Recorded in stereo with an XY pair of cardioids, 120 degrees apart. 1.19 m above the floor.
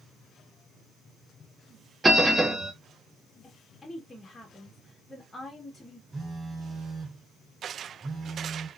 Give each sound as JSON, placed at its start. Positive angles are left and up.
{"t": 2.0, "sound": "a bell", "azimuth_deg": -20, "distance_m": 0.8}
{"t": 3.4, "sound": "a woman speaking", "azimuth_deg": 15, "distance_m": 1.2}
{"t": 6.1, "sound": "a phone buzzing", "azimuth_deg": -25, "distance_m": 2.0}